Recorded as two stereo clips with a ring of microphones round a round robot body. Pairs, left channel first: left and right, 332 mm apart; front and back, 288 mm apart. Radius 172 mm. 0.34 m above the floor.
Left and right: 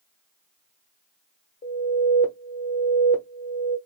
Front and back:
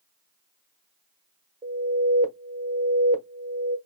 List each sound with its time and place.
1.6 s an alarm: 135° left, 1.1 m